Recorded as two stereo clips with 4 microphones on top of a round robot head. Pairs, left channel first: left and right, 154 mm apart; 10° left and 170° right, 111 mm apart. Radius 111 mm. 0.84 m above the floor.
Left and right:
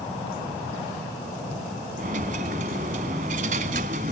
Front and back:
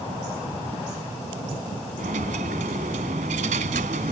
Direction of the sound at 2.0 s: 140° right.